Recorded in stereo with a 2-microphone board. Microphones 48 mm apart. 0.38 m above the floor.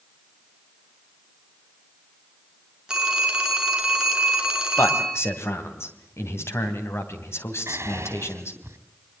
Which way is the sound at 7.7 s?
70° right (ahead or behind).